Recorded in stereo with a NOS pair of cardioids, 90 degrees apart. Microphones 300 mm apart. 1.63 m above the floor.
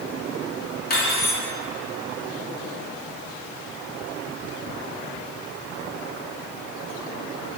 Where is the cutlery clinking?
35° left, 2.5 m.